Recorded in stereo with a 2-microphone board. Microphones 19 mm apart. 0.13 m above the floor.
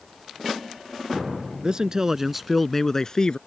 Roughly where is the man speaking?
Right.